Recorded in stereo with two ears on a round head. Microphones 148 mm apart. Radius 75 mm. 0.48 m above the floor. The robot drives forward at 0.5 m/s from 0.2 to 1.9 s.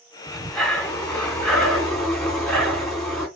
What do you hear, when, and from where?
0.3 s breathing: 5° left (ahead or behind), 2 m